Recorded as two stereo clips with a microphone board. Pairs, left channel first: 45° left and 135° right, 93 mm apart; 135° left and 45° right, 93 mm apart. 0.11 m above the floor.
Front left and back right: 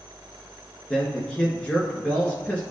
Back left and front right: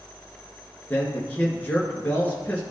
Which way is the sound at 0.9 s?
95° left.